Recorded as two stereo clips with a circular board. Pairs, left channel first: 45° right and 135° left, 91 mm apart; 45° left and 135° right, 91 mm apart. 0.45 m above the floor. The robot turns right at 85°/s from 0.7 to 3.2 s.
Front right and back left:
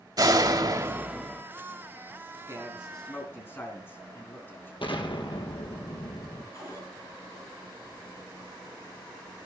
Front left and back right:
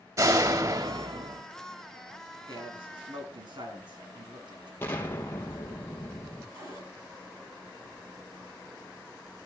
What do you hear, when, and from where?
0.2 s a door slam: 175° left, 1.8 m; by 1.4 s 125° right, 1.8 m
2.5 s a man speaking: 170° right, 4 m; by 4.7 s 110° right, 4 m
4.8 s an explosion: 20° right, 3 m
6.5 s a cupboard door: 95° right, 9 m